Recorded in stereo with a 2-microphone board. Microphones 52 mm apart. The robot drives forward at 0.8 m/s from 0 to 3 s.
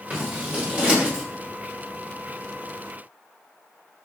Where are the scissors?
30° right (ahead or behind), 4 m; by 1.2 s 25° right (ahead or behind), 5 m.